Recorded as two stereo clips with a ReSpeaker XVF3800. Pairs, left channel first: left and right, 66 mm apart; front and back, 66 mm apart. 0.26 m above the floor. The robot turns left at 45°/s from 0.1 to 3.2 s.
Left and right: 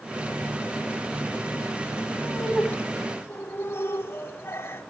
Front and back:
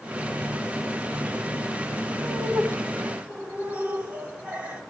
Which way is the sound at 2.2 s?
170° left.